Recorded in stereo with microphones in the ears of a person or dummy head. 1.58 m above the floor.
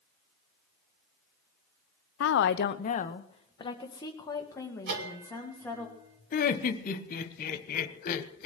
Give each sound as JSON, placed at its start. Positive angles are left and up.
{"t": 2.2, "sound": "a woman speaking", "side_deg": 75, "distance_m": 0.6}
{"t": 4.9, "sound": "a bell", "side_deg": -60, "distance_m": 2.0}
{"t": 6.3, "sound": "laughter", "side_deg": 55, "distance_m": 1.3}